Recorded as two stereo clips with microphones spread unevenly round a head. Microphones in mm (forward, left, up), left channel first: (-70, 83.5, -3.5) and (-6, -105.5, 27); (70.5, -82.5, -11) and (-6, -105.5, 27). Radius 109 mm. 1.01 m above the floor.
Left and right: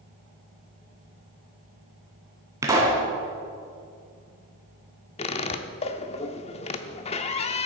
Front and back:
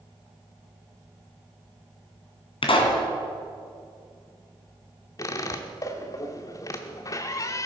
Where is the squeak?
80° left, 0.6 m.